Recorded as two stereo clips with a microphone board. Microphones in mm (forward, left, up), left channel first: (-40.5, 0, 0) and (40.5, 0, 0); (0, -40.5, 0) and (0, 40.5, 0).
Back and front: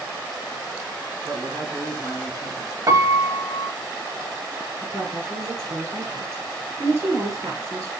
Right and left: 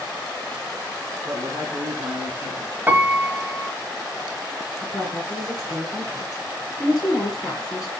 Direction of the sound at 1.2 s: 40° left.